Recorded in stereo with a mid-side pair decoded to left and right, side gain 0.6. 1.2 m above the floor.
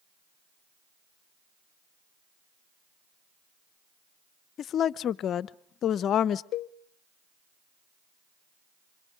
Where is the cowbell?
50° left, 0.7 m.